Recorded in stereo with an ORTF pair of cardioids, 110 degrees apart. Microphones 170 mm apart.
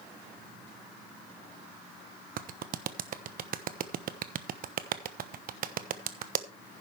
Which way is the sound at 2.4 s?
55° right.